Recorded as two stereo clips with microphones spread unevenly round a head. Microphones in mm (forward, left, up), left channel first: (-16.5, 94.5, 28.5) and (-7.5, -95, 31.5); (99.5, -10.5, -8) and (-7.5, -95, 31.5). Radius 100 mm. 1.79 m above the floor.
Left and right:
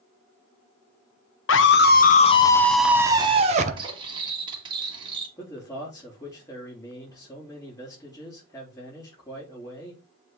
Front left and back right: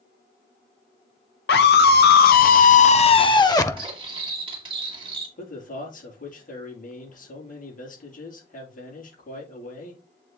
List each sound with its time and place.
1.5 s a scream: 65° left, 0.9 m; by 3.9 s 40° right, 1.0 m
3.8 s cutlery clinking: 145° right, 1.5 m
5.4 s a man speaking: 20° left, 5 m